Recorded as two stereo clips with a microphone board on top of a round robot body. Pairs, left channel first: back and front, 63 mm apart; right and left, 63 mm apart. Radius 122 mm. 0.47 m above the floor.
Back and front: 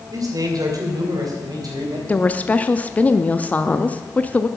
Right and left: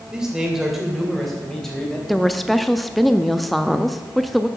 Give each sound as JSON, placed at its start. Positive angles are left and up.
{"t": 0.1, "sound": "a man speaking", "azimuth_deg": 10, "distance_m": 2.5}
{"t": 2.1, "sound": "a woman speaking", "azimuth_deg": -175, "distance_m": 0.7}